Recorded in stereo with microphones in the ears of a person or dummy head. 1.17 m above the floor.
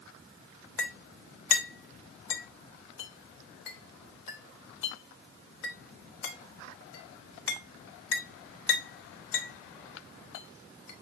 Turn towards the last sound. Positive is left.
turn(degrees=75)  # may be behind; listen again after turning